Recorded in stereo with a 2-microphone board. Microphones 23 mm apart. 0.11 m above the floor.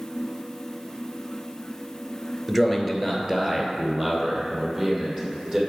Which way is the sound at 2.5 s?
5° right (ahead or behind).